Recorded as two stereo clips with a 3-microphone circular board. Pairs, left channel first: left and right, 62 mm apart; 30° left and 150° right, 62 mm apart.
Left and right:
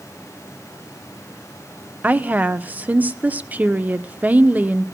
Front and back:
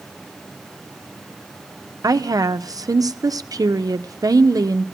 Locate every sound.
2.0 s a woman speaking: 155° right, 0.9 m